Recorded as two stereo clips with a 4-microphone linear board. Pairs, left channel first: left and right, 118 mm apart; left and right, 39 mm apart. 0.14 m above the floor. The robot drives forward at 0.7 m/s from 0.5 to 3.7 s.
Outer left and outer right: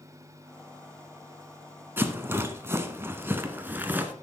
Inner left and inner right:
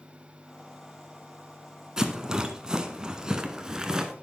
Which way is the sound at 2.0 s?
20° right (ahead or behind).